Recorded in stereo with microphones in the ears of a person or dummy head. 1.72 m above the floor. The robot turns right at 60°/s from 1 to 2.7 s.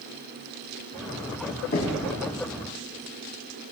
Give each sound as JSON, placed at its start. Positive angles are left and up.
{"t": 1.7, "sound": "knocking", "side_deg": 40, "distance_m": 1.4}